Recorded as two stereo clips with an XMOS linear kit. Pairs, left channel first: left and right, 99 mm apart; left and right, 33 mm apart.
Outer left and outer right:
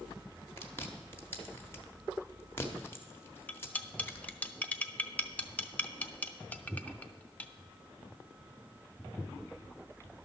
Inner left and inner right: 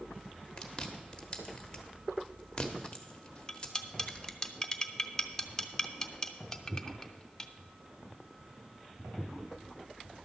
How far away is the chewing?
About 1.2 m.